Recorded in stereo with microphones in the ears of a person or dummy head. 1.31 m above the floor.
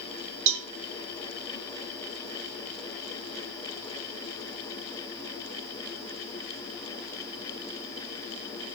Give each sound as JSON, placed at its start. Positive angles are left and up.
{"t": 0.5, "sound": "a cowbell", "side_deg": -65, "distance_m": 0.7}